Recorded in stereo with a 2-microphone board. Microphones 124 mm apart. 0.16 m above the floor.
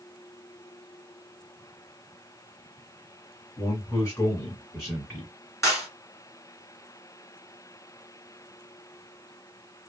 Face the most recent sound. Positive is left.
turn(degrees=25)  # may be behind; listen again after turning